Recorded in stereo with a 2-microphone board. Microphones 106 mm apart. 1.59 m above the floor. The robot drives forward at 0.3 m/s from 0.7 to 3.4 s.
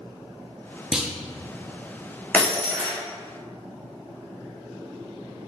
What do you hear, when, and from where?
0.9 s a clunk: 5° right (ahead or behind), 0.6 m
2.3 s breaking glass: 15° left (ahead or behind), 1.2 m